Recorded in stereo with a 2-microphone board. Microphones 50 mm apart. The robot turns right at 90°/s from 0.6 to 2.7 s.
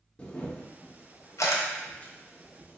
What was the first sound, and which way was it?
A camera shutter, 25° left (ahead or behind).